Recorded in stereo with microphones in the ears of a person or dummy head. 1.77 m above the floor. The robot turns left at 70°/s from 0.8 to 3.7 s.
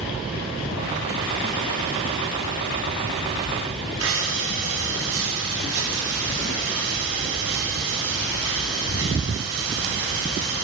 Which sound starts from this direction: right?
Breathing, at 4.0 s.